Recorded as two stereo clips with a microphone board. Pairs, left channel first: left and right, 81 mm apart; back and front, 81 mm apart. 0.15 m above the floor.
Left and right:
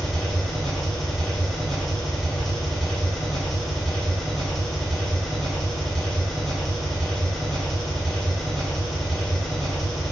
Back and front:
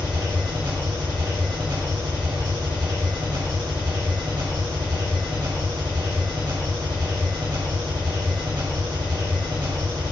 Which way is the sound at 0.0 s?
5° left.